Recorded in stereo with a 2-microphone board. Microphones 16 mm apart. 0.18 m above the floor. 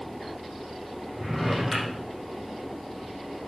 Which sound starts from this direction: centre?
A drawer, at 1.1 s.